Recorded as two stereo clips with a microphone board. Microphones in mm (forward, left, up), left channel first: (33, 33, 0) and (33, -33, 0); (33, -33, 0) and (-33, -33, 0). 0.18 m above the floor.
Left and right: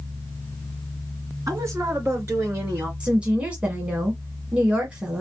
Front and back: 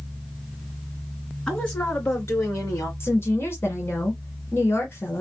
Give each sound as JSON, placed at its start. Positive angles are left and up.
{"t": 1.5, "sound": "a woman speaking", "azimuth_deg": -70, "distance_m": 2.5}
{"t": 3.0, "sound": "a woman speaking", "azimuth_deg": -25, "distance_m": 1.5}